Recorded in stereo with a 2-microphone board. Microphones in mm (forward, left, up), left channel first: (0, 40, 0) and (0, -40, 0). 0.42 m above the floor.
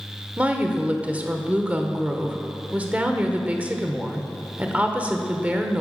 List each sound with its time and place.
0.4 s a woman speaking: 20° right (ahead or behind), 1.0 m